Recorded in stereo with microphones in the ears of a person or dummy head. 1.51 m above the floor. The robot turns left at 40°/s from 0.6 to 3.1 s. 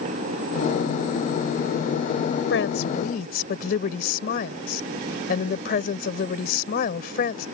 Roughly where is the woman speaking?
Left.